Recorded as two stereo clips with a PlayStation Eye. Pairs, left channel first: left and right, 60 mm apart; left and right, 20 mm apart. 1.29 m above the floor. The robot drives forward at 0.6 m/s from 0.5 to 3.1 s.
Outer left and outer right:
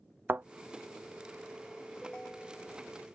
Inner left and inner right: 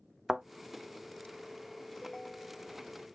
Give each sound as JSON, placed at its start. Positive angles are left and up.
{"t": 0.3, "sound": "a thud", "side_deg": -35}
{"t": 2.0, "sound": "a ringtone", "side_deg": 15}